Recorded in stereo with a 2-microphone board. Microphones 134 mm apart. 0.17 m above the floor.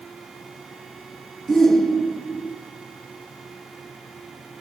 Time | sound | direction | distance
1.5 | a shout | 5° left (ahead or behind) | 2.0 m